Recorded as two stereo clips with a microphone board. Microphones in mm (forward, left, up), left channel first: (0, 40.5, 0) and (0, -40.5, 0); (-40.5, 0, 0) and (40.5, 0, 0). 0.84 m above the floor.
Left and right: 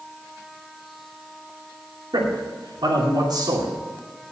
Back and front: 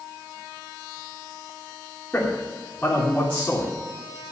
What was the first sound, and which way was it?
A man speaking, 110° right.